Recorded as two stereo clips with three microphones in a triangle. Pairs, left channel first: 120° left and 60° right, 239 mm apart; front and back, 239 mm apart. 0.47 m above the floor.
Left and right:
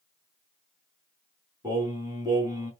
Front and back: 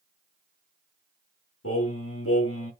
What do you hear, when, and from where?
1.6 s singing: 15° left, 4 m